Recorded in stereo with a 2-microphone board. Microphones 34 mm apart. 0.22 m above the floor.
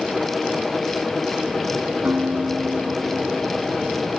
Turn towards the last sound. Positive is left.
turn(degrees=-50)  # may be behind; listen again after turning